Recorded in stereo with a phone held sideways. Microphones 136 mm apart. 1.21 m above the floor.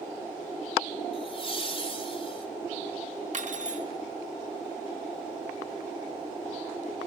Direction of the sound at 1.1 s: 40° left (ahead or behind).